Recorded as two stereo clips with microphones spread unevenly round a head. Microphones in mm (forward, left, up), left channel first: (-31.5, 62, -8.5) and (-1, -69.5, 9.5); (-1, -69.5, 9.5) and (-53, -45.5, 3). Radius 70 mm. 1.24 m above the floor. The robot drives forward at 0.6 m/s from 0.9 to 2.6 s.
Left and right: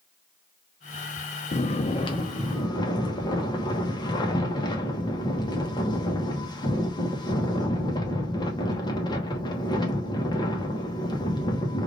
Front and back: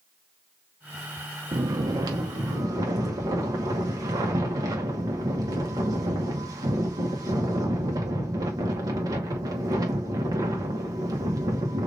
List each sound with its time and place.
1.5 s snoring: 140° left, 0.6 m; by 11.9 s 160° left, 1.2 m